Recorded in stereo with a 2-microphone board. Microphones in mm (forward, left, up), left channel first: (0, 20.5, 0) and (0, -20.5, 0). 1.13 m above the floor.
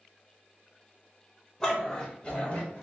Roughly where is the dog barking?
Centre.